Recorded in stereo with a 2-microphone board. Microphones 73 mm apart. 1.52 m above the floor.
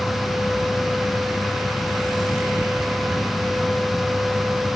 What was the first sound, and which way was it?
Only background noise.